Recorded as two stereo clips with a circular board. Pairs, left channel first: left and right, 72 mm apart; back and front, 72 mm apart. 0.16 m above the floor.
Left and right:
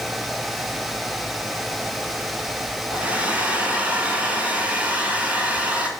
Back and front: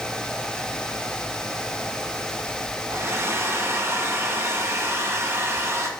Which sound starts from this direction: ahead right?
A hair dryer, at 2.9 s.